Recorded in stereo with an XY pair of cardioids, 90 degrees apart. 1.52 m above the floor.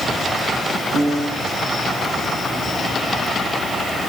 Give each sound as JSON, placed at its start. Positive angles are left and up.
{"t": 0.9, "sound": "a piano", "azimuth_deg": -70, "distance_m": 9.5}